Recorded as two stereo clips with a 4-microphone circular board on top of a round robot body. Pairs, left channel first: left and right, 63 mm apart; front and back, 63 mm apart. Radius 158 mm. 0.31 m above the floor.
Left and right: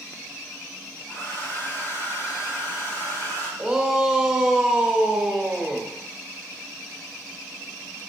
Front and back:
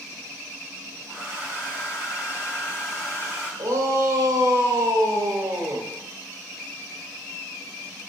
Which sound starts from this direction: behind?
A shout, at 3.6 s.